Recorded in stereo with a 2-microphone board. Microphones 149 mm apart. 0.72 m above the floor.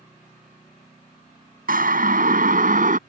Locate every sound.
1.7 s a siren: 75° right (ahead or behind); by 3.0 s 65° right (ahead or behind)